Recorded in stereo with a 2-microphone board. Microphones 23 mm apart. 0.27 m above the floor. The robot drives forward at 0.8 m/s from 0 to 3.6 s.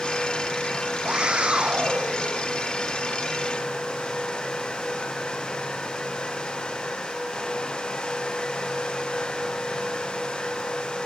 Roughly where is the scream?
Right.